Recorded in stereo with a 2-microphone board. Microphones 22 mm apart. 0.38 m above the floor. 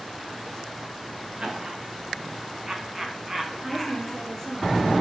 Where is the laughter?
45° right (ahead or behind), 3.5 m; by 4.2 s centre (ahead or behind), 2.5 m.